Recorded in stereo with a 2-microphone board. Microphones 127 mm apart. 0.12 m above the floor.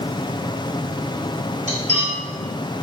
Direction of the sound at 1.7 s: 55° right (ahead or behind).